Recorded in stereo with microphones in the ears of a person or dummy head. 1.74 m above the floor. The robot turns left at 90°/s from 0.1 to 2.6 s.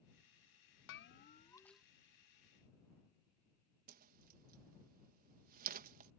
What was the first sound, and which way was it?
A bell, 75° left.